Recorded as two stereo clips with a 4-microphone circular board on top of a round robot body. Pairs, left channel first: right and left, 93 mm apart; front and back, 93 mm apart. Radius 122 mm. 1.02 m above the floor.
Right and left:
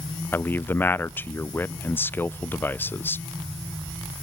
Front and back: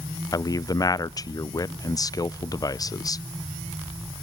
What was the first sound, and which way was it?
A man speaking, 30° right.